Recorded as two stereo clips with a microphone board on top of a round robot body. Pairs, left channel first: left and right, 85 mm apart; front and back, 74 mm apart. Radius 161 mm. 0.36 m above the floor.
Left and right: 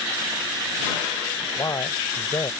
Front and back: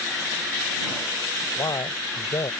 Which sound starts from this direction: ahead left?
A man speaking, at 1.6 s.